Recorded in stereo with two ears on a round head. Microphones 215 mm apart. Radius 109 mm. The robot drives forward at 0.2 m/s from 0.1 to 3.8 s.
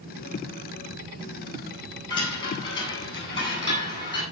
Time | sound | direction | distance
2.1 | a chime | 20° left (ahead or behind) | 8.5 m